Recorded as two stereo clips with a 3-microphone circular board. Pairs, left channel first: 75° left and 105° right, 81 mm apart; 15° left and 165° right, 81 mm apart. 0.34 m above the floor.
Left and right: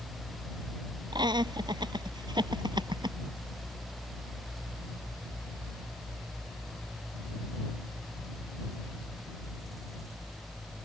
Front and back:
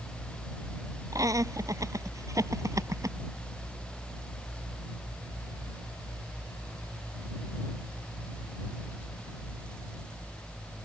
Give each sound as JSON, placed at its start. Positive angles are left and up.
{"t": 1.1, "sound": "laughter", "azimuth_deg": -125}